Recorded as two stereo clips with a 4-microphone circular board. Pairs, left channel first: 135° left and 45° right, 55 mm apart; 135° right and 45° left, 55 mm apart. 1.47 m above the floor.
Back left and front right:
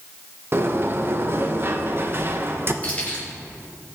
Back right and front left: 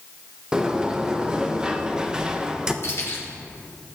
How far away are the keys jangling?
About 4 m.